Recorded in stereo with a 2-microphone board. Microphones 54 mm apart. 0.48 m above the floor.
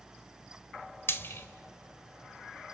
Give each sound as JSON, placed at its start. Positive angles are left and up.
{"t": 1.1, "sound": "frying", "side_deg": 45, "distance_m": 1.2}